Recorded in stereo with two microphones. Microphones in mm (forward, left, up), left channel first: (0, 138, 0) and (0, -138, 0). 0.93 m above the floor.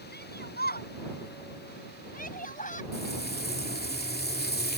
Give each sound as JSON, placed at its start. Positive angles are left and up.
{"t": 0.1, "sound": "a shout", "side_deg": 40}
{"t": 2.9, "sound": "frying", "side_deg": 35}